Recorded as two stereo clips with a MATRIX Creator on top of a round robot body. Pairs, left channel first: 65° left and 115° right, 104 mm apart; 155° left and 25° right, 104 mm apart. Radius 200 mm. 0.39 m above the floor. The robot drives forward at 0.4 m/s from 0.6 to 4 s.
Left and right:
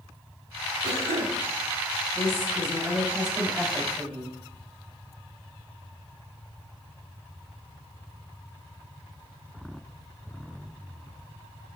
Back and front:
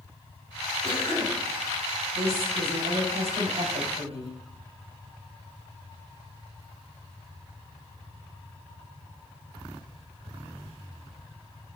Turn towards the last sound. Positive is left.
turn(degrees=-5)